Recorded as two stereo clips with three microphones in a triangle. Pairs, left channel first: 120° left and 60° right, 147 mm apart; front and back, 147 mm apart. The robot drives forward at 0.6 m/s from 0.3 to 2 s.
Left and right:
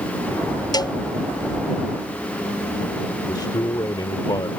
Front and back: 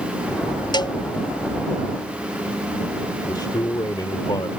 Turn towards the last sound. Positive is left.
turn(degrees=60)